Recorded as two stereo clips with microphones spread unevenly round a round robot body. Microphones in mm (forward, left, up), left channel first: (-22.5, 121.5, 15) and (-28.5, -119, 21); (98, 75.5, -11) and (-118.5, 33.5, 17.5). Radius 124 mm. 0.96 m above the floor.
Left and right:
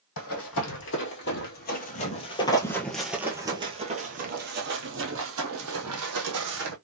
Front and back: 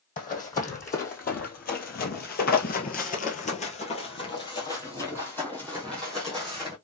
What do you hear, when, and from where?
0.2 s running footsteps: 65° left, 1.8 m; by 6.7 s 85° right, 2 m